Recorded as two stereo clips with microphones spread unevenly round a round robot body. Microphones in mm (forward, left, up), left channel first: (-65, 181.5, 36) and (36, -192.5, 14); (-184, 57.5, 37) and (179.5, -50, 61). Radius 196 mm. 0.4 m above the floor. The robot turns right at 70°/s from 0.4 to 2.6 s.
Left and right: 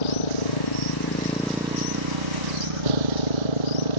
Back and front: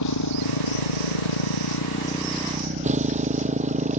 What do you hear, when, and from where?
0.0 s a motorcycle: 115° left; by 4.0 s 90° right